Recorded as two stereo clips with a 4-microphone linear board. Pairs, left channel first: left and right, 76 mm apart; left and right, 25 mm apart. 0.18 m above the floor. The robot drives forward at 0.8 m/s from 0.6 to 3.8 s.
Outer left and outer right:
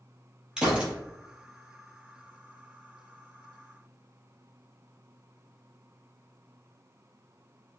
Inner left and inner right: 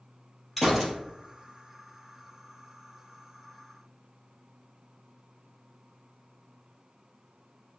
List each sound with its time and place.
0.6 s a gunshot: 10° right (ahead or behind), 2.5 m